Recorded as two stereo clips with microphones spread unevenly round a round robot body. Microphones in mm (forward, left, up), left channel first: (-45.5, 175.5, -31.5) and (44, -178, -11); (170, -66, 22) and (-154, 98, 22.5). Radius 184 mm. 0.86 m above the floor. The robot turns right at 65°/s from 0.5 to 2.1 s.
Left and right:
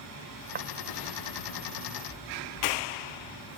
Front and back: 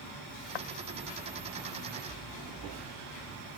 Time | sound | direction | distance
0.6 | footsteps | 10° right | ?